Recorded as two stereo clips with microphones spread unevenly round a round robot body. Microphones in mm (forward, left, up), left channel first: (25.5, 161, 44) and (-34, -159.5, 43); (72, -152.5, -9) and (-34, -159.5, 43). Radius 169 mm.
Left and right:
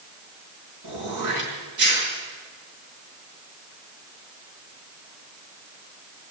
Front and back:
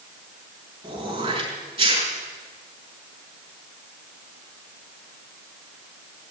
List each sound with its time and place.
0.8 s throat clearing: 140° right, 6.5 m